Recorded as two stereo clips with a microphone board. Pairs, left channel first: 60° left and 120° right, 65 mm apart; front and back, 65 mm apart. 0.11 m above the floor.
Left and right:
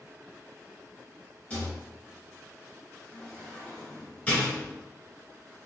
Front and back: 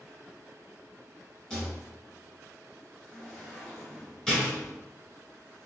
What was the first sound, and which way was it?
A rattle, 60° left.